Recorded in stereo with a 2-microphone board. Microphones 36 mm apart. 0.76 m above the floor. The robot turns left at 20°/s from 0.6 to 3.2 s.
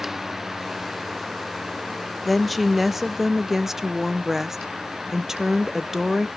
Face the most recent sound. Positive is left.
turn(degrees=-10)  # may be behind; listen again after turning